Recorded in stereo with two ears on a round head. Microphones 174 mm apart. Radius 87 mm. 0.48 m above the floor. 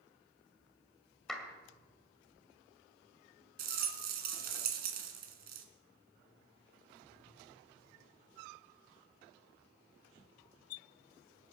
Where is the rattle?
50° right (ahead or behind), 2.0 m.